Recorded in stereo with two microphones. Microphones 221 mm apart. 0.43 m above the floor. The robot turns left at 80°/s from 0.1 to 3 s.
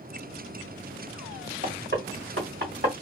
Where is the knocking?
35° right (ahead or behind), 1.6 m.